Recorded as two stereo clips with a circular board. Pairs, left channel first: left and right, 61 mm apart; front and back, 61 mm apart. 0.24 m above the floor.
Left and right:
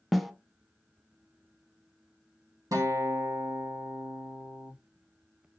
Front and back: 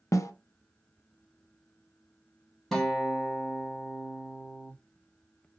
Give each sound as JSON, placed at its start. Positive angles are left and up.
{"t": 0.1, "sound": "a snare drum", "azimuth_deg": 0, "distance_m": 0.5}
{"t": 2.7, "sound": "a guitar", "azimuth_deg": -85, "distance_m": 1.3}